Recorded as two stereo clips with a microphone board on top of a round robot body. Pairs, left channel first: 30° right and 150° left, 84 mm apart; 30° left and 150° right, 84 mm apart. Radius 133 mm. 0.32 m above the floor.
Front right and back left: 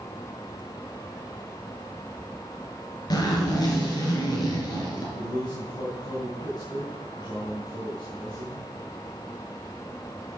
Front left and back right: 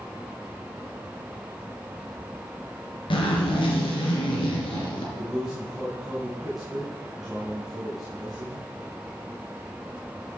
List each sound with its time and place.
3.1 s a zipper: 10° left, 4 m
5.2 s a man speaking: 65° right, 3.5 m